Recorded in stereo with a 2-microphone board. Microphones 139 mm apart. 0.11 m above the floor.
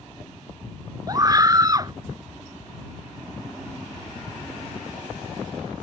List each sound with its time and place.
1.1 s a scream: 30° right (ahead or behind)